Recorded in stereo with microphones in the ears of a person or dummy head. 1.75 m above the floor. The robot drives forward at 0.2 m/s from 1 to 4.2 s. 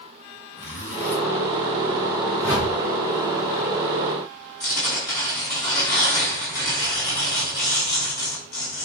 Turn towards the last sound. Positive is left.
turn(degrees=20)  # may be behind; listen again after turning